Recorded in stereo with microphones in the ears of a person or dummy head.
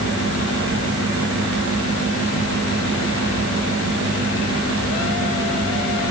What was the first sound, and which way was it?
A fan, 75° right (ahead or behind).